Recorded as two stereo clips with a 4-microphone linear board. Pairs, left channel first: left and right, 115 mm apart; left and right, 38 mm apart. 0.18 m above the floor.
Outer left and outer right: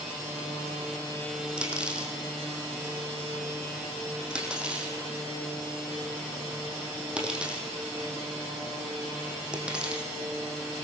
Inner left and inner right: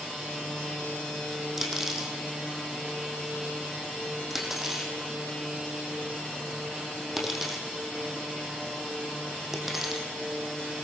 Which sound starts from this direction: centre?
Cutlery clinking, at 1.6 s.